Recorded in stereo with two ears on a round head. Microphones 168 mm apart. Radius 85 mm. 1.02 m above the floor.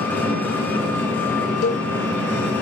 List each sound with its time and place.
0.0 s an engine running: 10° left (ahead or behind), 5 m
1.6 s a cowbell: 75° left (ahead or behind), 2 m